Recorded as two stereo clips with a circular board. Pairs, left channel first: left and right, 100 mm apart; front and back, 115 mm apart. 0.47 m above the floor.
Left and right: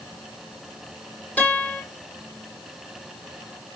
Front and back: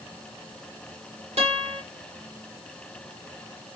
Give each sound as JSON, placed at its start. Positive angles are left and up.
{"t": 1.4, "sound": "a guitar", "azimuth_deg": 165, "distance_m": 8.0}